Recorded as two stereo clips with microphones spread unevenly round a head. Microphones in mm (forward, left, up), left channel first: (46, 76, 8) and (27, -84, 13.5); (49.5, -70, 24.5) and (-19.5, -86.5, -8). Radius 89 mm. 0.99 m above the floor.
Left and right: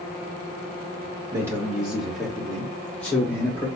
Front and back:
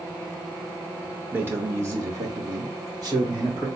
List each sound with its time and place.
1.3 s a man speaking: 170° right, 1.0 m; by 3.7 s 160° left, 2.5 m